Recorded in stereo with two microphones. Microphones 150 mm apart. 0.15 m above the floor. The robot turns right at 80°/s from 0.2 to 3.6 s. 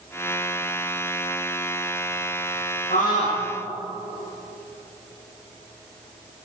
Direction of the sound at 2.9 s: 55° left.